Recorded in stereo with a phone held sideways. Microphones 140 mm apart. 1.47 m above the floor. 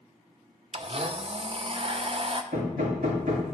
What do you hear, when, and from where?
0.7 s a blender: 45° right (ahead or behind), 0.6 m
2.5 s hammering: 85° right, 3 m